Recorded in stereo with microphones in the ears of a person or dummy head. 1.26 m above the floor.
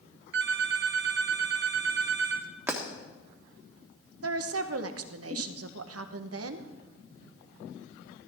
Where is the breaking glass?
10° right (ahead or behind), 1.4 m.